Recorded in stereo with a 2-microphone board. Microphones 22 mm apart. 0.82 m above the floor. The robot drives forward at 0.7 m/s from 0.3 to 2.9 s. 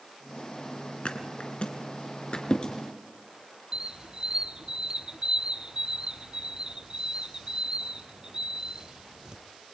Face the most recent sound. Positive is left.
turn(degrees=-35)  # may be behind; listen again after turning